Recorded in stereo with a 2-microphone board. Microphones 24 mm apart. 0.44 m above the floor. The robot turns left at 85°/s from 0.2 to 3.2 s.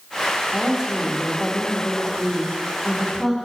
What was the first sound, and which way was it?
A woman speaking, 120° right.